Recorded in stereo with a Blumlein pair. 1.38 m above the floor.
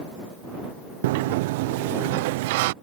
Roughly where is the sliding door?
Ahead right.